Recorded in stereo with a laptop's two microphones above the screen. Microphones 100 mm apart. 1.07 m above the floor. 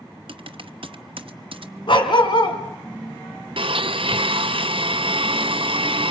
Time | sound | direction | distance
0.3 | typing on a keyboard | 65° right (ahead or behind) | 1.0 m
1.9 | a dog barking | 60° left (ahead or behind) | 3 m
3.6 | a blender | 70° right (ahead or behind) | 0.6 m